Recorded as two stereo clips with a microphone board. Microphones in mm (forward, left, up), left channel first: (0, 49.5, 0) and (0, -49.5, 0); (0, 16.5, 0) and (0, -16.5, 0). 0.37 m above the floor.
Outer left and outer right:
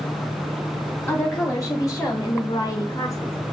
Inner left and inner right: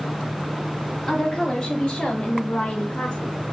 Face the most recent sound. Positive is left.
turn(degrees=30)  # may be behind; listen again after turning